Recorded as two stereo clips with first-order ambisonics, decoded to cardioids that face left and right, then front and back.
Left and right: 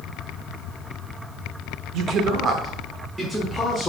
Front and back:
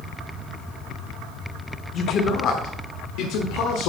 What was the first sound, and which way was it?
A man speaking, 55° right.